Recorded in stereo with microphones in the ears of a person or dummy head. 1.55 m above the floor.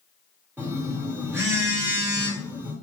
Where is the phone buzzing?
15° right (ahead or behind), 1.0 m.